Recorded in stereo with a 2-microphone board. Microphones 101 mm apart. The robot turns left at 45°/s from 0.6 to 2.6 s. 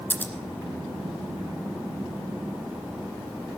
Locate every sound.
0.1 s scissors: 20° left (ahead or behind), 1.7 m